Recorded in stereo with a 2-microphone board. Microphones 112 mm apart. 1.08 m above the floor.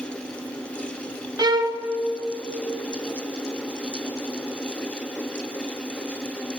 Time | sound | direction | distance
1.4 | a violin | 40° right (ahead or behind) | 0.7 m